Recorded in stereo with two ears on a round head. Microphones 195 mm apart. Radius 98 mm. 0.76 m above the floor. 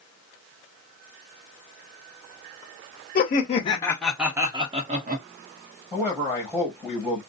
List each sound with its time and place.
3.1 s laughter: 45° left (ahead or behind), 0.7 m; by 5.2 s 40° right (ahead or behind), 0.9 m
5.9 s a man speaking: 5° right (ahead or behind), 1.1 m